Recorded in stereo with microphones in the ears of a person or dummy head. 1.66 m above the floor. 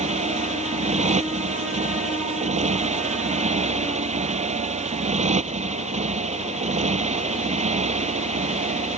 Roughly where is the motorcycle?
Right.